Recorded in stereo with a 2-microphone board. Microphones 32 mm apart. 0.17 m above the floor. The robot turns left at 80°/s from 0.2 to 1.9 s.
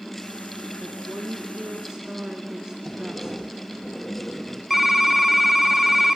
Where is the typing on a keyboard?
Centre (ahead or behind), 1.4 m.